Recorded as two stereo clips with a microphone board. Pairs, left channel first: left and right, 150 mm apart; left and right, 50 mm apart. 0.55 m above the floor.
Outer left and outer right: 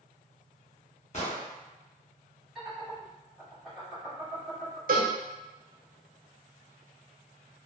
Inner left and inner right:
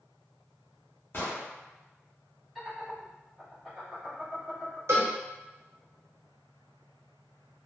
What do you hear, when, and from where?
1.1 s an explosion: 50° left (ahead or behind), 1.0 m
2.5 s laughter: centre (ahead or behind), 1.3 m
4.9 s a cowbell: 70° right (ahead or behind), 0.7 m